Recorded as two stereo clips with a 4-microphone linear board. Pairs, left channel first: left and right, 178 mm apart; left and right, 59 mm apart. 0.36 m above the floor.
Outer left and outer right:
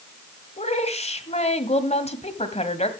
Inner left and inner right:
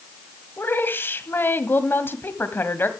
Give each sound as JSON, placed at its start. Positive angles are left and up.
{"t": 0.6, "sound": "a woman speaking", "side_deg": 40, "distance_m": 1.8}